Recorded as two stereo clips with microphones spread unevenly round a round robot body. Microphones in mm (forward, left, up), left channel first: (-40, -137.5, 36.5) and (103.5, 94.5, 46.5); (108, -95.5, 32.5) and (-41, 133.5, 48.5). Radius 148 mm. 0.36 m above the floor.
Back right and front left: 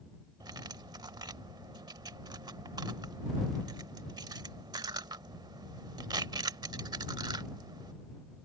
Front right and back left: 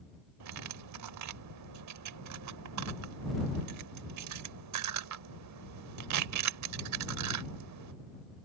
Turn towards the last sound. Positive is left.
turn(degrees=135)